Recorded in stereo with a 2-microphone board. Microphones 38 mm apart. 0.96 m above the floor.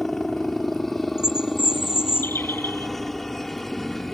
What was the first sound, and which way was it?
A helicopter, 5° left (ahead or behind).